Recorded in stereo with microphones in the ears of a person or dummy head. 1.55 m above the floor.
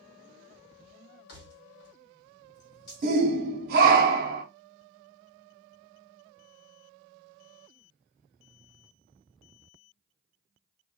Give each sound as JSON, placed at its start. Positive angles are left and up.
{"t": 1.3, "sound": "keys jangling", "side_deg": 55, "distance_m": 1.5}
{"t": 3.0, "sound": "a shout", "side_deg": -50, "distance_m": 0.8}